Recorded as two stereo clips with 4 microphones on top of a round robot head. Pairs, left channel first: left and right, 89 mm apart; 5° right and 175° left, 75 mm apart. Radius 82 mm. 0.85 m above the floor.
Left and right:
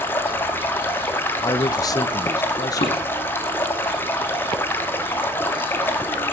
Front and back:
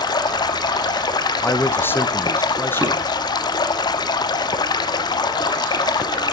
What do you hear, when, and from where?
0.0 s running water: 20° left, 1.0 m
1.4 s a man speaking: 50° left, 0.7 m
2.8 s dishes clattering: 95° left, 5 m